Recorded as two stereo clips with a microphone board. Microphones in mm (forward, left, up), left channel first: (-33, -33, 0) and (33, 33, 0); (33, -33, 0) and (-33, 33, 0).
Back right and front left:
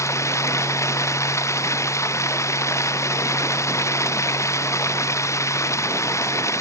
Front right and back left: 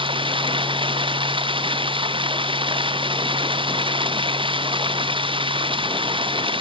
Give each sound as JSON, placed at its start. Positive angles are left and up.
{"t": 0.0, "sound": "running water", "azimuth_deg": 165}